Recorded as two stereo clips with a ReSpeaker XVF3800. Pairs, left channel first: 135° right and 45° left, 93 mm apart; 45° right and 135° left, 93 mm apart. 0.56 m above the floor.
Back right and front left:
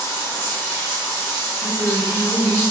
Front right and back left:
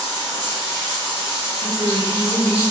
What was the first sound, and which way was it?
Running water, 90° right.